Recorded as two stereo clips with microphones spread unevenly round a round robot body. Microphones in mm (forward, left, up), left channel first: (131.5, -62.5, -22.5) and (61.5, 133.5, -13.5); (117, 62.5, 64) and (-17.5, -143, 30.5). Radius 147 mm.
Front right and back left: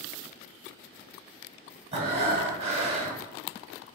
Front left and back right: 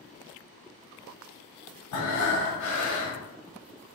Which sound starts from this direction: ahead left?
Breathing, at 1.9 s.